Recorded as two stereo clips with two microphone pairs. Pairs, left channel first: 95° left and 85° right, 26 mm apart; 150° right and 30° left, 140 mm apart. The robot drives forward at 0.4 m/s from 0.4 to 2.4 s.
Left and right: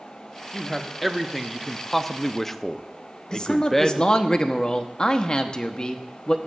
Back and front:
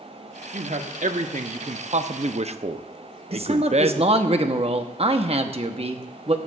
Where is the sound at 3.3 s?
55° left, 0.9 m.